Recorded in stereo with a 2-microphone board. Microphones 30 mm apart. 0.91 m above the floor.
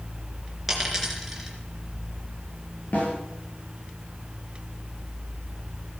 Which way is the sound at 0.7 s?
5° right (ahead or behind).